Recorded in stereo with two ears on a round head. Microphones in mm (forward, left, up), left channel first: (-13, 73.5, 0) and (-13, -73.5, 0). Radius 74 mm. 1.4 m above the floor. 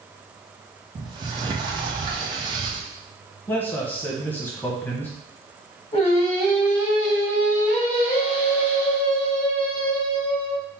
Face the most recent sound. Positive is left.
turn(degrees=40)  # may be behind; listen again after turning